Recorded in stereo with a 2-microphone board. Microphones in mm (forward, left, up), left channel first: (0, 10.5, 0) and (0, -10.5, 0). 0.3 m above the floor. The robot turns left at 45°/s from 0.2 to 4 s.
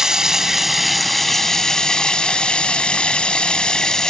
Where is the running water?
150° right, 1.4 m; by 4.1 s 35° left, 1.4 m.